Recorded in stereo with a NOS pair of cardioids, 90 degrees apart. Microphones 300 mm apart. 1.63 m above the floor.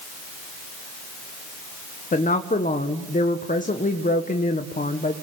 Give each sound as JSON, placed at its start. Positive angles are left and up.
{"t": 2.1, "sound": "a woman speaking", "azimuth_deg": 25, "distance_m": 1.4}